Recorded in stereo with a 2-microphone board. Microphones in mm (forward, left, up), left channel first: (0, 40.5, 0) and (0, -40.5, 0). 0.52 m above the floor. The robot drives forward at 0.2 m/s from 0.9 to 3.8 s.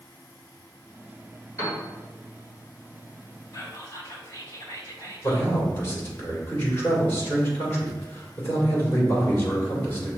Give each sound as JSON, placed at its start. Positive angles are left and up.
{"t": 1.6, "sound": "a piano", "side_deg": 40, "distance_m": 2.0}
{"t": 3.5, "sound": "whispering", "side_deg": 45, "distance_m": 1.8}
{"t": 5.2, "sound": "a man speaking", "side_deg": 30, "distance_m": 1.7}